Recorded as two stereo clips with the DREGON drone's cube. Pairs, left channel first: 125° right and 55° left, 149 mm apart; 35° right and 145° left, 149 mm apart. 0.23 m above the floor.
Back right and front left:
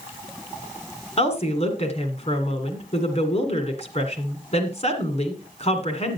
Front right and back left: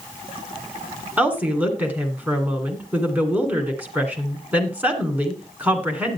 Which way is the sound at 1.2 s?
140° right.